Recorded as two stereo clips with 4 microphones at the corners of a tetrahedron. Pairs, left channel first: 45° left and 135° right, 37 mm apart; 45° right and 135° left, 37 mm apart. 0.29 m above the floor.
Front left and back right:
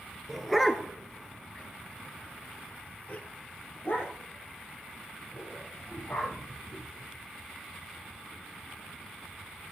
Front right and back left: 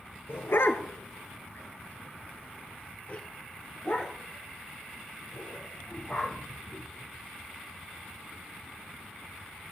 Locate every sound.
0.3 s a dog barking: 50° right, 1.3 m; by 7.3 s 30° left, 4 m